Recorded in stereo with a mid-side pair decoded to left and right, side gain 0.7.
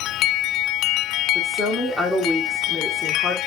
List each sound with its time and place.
1.4 s a woman speaking: 5° left, 1.4 m